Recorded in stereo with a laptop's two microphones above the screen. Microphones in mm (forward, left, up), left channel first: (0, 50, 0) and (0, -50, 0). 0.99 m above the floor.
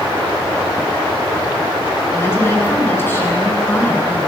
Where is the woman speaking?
25° left (ahead or behind), 10 m.